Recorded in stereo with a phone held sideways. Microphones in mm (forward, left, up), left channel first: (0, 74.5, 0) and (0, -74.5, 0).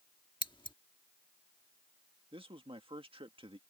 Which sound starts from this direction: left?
Scissors, at 0.4 s.